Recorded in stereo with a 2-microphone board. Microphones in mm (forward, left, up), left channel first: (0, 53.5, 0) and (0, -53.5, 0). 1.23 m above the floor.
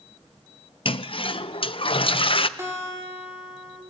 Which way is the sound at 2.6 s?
25° right (ahead or behind).